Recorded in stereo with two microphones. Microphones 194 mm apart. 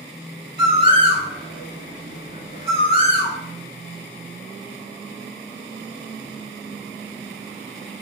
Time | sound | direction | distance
0.6 | a bird | 25° right (ahead or behind) | 0.6 m